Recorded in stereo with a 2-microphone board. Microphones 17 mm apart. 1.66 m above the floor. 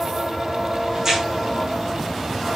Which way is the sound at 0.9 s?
35° right (ahead or behind).